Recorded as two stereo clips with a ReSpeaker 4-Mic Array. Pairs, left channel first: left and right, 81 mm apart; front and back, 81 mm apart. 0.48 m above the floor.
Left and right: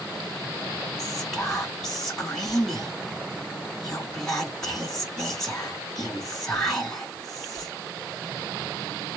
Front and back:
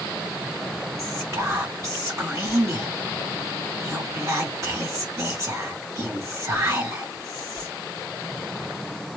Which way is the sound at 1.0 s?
170° left.